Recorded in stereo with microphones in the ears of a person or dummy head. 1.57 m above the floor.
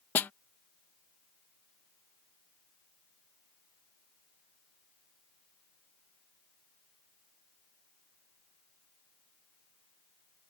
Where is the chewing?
I don't hear chewing.